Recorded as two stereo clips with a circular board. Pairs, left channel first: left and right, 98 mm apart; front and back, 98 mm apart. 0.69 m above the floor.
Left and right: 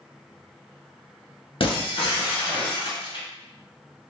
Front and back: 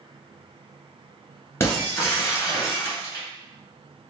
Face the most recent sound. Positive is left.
turn(degrees=65)